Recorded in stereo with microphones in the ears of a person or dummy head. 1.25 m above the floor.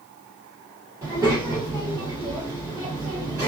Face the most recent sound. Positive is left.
turn(degrees=-20)  # may be behind; listen again after turning